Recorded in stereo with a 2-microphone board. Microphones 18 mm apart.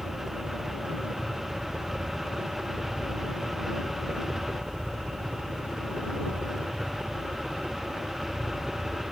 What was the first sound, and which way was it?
A helicopter, 60° right (ahead or behind).